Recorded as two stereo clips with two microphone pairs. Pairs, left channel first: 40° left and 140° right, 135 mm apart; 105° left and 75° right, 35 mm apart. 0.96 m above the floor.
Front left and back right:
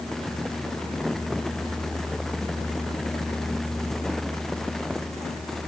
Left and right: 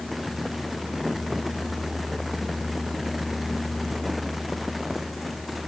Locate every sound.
Only background noise.